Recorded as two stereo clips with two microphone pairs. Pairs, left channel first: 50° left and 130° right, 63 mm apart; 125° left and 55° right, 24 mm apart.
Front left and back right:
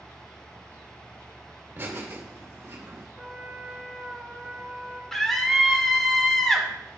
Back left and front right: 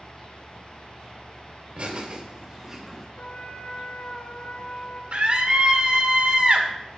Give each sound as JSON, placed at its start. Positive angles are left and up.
{"t": 1.8, "sound": "laughter", "azimuth_deg": -75, "distance_m": 2.0}
{"t": 3.2, "sound": "a trumpet", "azimuth_deg": 140, "distance_m": 3.0}
{"t": 5.1, "sound": "a scream", "azimuth_deg": -35, "distance_m": 1.9}